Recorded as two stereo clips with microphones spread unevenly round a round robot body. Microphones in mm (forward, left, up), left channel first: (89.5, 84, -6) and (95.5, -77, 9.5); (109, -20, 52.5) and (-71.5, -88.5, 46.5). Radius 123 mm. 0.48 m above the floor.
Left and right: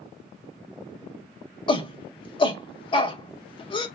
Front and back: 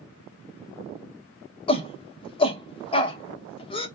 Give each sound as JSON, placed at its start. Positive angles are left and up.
{"t": 1.7, "sound": "a shout", "azimuth_deg": 70, "distance_m": 0.8}